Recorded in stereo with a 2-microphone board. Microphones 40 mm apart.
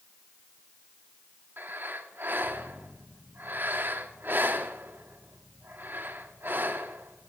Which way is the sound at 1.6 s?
60° right (ahead or behind).